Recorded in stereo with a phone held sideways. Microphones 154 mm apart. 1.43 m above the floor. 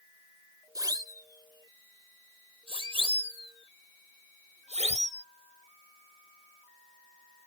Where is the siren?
25° right (ahead or behind); by 5.2 s 50° right (ahead or behind).